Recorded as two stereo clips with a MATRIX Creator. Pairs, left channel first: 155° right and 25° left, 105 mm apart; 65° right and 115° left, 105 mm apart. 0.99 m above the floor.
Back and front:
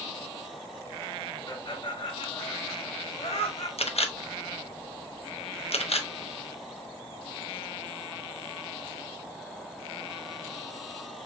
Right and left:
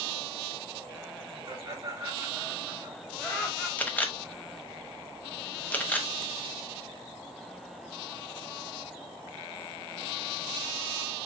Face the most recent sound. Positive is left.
turn(degrees=-145)